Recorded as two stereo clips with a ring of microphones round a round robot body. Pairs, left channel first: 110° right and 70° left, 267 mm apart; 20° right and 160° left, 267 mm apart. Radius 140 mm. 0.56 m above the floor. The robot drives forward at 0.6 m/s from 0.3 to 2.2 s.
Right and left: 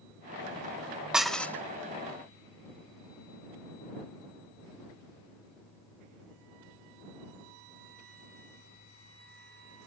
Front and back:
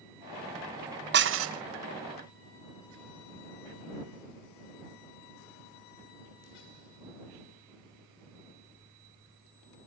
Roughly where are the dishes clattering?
Behind left.